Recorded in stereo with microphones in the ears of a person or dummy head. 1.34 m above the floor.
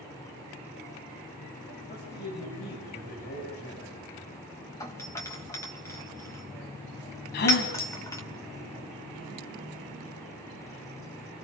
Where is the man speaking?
40° left (ahead or behind), 8.5 m.